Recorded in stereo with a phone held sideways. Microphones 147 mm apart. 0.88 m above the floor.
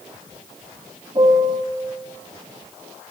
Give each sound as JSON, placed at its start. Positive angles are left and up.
{"t": 1.1, "sound": "a piano", "side_deg": -30, "distance_m": 1.0}